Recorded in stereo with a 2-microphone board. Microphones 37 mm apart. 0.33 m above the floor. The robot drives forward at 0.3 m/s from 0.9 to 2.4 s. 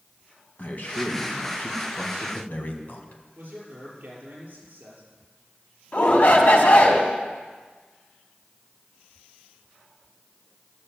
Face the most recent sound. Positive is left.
turn(degrees=55)  # may be behind; listen again after turning